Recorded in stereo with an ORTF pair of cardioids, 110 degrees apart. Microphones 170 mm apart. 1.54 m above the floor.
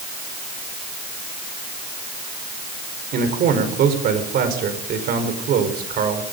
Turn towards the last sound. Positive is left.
turn(degrees=-65)